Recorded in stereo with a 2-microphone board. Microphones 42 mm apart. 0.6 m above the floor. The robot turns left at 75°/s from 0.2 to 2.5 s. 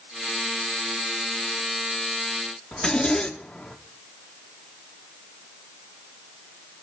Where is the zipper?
20° left (ahead or behind), 1.3 m.